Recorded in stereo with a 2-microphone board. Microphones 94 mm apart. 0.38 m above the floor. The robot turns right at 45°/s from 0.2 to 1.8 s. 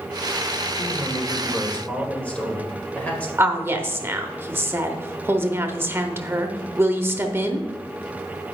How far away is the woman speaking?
About 0.8 m.